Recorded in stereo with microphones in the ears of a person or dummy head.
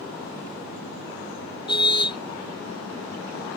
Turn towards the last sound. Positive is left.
turn(degrees=25)  # may be behind; listen again after turning